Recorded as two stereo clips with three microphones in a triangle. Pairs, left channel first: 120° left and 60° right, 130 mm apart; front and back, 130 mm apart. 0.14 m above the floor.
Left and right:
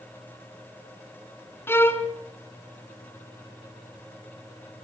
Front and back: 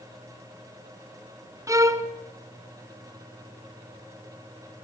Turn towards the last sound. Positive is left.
turn(degrees=165)